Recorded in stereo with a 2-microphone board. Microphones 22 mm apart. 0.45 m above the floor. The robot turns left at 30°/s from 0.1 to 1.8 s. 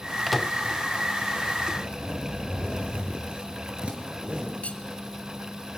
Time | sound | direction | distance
0.3 | a microwave | centre (ahead or behind) | 0.7 m
1.8 | a zipper | 55° right (ahead or behind) | 4 m
4.6 | cutlery clinking | 80° left | 1.9 m